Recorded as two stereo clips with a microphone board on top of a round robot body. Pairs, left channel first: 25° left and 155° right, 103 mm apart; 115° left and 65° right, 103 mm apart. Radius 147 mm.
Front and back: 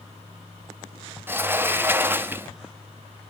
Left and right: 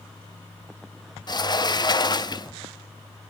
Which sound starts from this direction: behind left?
A sliding door, at 1.3 s.